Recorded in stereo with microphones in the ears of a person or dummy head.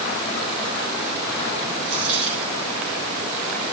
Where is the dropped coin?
75° right (ahead or behind), 4.5 m.